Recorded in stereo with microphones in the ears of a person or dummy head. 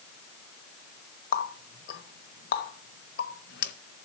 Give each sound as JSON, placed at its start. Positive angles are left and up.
{"t": 1.3, "sound": "a running tap", "side_deg": 55, "distance_m": 0.8}